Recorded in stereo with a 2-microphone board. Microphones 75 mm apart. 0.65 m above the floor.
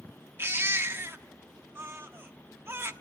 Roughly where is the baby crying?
Right.